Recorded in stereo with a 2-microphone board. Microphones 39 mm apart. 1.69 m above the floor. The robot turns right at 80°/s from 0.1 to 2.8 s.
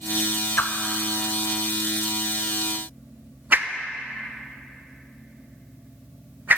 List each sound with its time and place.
0.6 s a whoosh: 50° left (ahead or behind), 0.5 m; by 6.6 s 50° right (ahead or behind), 0.5 m